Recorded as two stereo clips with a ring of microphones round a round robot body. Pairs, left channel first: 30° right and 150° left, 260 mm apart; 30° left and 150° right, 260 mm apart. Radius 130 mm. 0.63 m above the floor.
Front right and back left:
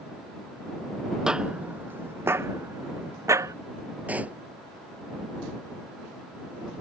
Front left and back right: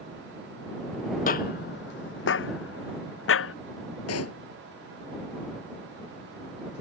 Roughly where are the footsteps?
Ahead left.